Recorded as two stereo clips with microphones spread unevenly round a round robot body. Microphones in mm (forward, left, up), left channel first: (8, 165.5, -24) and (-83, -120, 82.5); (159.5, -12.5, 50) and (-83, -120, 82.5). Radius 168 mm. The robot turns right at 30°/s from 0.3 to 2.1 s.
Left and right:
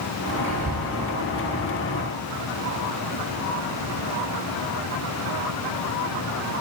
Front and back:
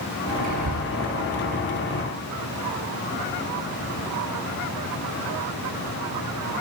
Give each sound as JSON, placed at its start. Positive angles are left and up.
{"t": 0.4, "sound": "whispering", "azimuth_deg": -150, "distance_m": 5.5}